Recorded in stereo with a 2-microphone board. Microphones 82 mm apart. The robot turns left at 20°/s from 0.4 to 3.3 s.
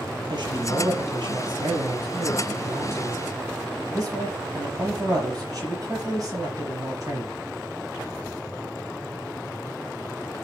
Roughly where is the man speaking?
Right.